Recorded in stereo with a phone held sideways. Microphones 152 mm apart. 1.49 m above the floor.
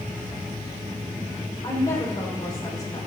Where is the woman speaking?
25° left (ahead or behind), 4 m.